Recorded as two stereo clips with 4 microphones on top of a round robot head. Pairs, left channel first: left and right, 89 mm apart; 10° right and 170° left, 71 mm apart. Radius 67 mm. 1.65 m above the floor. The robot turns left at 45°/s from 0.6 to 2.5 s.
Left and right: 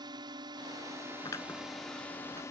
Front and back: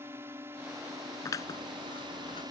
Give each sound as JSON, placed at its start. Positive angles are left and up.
{"t": 0.0, "sound": "a drone", "azimuth_deg": -130}
{"t": 1.2, "sound": "scissors", "azimuth_deg": 30}